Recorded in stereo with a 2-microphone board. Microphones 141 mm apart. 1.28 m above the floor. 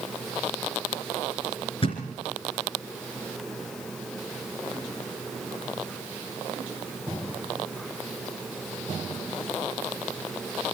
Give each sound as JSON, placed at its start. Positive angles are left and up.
{"t": 1.8, "sound": "a thud", "side_deg": 40, "distance_m": 3.0}